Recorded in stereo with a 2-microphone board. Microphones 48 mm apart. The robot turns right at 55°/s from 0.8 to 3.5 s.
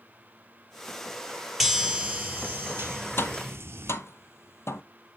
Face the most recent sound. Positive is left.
turn(degrees=70)  # may be behind; listen again after turning